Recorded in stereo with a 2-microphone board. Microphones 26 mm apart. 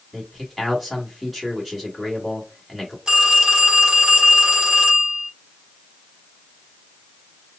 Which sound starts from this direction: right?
A phone ringing, at 3.1 s.